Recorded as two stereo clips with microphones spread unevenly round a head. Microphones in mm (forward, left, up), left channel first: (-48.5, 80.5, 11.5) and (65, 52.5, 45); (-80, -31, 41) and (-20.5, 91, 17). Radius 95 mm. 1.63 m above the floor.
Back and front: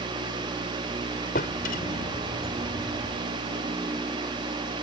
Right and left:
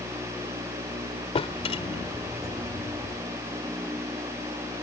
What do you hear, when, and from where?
1.4 s a drawer: 160° right